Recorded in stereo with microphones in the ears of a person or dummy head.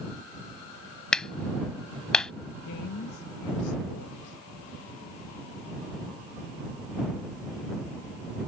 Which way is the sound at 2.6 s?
70° left (ahead or behind).